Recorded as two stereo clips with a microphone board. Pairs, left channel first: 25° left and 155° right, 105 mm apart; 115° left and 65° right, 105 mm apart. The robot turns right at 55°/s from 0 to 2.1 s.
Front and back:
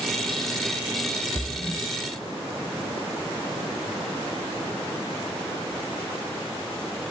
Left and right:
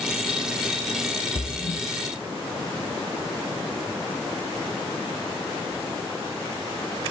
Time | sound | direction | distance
1.4 | a splash | 80° left | 1.4 m